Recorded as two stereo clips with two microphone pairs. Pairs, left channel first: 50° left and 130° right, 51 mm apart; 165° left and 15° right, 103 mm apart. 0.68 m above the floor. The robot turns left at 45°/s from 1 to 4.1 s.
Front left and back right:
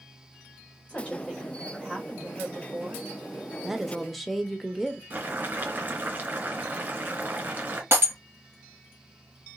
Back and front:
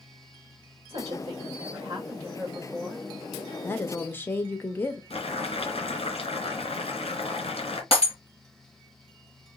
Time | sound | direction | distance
0.9 | a woman speaking | 10° right | 2 m
3.6 | a woman speaking | 160° left | 0.7 m
5.1 | boiling | 175° right | 1.7 m
7.9 | breaking glass | 165° right | 3.5 m